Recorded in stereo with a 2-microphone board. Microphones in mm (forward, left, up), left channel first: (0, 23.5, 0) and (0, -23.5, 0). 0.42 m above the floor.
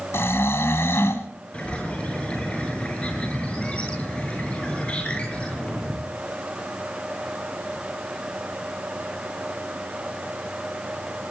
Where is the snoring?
70° left (ahead or behind), 2 m.